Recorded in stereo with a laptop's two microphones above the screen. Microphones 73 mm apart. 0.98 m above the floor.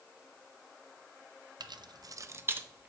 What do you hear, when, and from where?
1.6 s keys jangling: 65° right (ahead or behind), 0.5 m; by 2.9 s 20° right (ahead or behind), 1.1 m